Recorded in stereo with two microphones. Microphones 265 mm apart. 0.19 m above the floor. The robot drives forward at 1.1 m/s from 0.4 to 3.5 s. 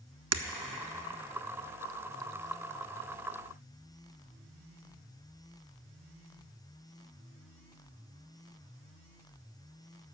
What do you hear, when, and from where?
0.3 s breaking glass: 75° right (ahead or behind), 0.7 m